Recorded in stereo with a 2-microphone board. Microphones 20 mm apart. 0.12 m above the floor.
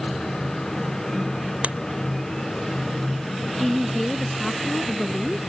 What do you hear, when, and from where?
1.6 s scissors: 80° right
3.6 s a woman speaking: 15° left (ahead or behind)